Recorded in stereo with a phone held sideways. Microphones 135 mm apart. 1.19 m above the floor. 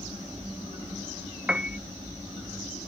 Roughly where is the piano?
Centre.